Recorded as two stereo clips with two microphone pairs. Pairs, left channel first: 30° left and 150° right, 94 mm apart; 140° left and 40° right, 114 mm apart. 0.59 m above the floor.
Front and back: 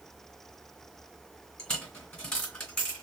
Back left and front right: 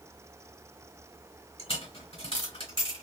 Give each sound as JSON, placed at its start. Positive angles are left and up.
{"t": 1.6, "sound": "a dropped coin", "azimuth_deg": 105, "distance_m": 1.7}